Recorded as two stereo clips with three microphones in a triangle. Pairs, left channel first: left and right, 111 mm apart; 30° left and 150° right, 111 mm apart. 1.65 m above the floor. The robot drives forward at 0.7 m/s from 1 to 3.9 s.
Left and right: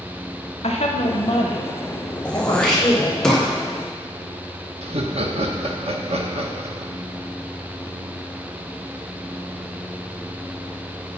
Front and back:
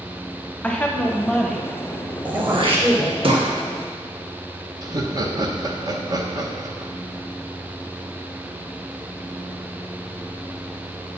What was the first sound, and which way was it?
A woman speaking, 105° left.